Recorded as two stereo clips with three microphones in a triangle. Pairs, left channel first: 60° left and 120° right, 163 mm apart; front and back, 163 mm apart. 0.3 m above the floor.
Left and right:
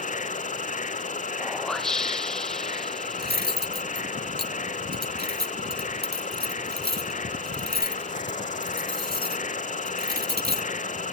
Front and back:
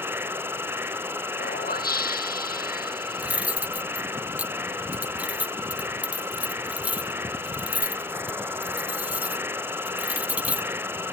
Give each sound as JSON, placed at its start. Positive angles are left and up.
{"t": 0.0, "sound": "an insect", "azimuth_deg": 100}
{"t": 1.4, "sound": "a whoosh", "azimuth_deg": -25}
{"t": 3.2, "sound": "cutlery clinking", "azimuth_deg": -100}